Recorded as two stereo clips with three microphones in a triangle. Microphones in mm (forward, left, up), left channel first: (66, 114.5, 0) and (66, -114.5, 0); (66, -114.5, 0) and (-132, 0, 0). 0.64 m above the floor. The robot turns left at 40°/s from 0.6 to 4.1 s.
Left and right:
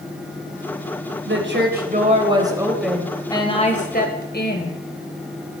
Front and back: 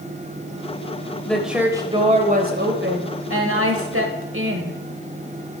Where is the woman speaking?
115° right, 3.5 m; by 4.8 s 130° left, 3.5 m.